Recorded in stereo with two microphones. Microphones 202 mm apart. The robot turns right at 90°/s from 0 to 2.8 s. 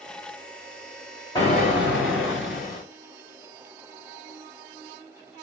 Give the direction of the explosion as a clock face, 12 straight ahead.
11 o'clock.